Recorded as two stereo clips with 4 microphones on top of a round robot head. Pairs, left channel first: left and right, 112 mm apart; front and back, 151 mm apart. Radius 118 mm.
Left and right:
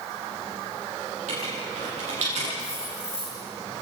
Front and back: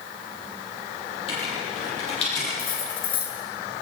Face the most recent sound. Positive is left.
turn(degrees=15)